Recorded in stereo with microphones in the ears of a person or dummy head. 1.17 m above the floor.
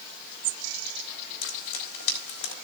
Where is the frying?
85° left, 4 m.